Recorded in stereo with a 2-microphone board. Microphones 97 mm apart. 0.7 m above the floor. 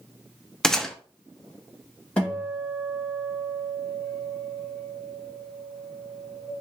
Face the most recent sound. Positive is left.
turn(degrees=10)  # may be behind; listen again after turning